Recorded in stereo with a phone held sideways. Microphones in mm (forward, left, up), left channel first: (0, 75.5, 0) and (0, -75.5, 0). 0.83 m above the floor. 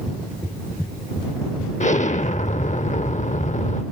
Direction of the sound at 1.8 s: 50° left (ahead or behind).